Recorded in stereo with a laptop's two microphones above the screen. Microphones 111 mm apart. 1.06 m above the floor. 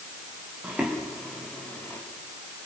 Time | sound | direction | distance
0.6 | footsteps | 10° right (ahead or behind) | 3 m